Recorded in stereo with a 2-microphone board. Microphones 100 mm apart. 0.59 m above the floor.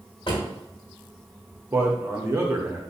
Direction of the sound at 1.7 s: 25° right (ahead or behind).